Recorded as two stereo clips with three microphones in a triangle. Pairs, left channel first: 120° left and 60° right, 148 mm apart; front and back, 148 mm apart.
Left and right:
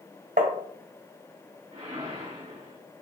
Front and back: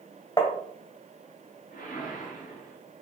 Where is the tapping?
60° right, 1.4 m.